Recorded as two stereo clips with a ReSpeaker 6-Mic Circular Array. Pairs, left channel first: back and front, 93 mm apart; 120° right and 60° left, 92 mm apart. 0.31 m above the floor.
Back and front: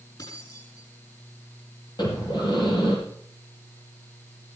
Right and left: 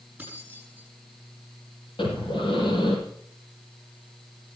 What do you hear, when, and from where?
0.2 s keys jangling: 135° left, 9 m
2.0 s breathing: 145° right, 7.5 m